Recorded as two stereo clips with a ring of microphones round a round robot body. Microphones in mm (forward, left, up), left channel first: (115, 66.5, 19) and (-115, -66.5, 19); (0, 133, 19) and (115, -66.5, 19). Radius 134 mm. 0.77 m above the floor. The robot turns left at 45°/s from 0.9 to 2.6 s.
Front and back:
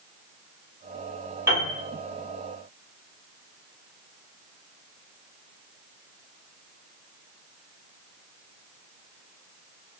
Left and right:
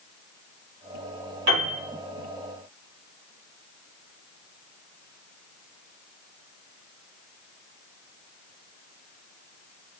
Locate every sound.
1.5 s a piano: 70° right, 1.7 m; by 1.8 s 85° right, 1.7 m